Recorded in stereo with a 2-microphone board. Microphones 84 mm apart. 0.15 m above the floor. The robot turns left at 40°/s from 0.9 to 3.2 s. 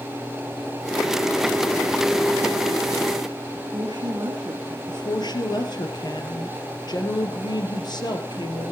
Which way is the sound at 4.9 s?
55° left (ahead or behind).